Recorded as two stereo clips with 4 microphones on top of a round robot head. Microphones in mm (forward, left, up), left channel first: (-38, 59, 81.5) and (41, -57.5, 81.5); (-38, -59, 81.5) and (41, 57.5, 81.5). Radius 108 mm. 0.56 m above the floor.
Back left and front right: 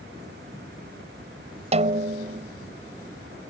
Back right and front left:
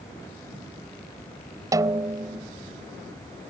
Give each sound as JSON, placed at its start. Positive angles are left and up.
{"t": 1.7, "sound": "a snare drum", "azimuth_deg": -10}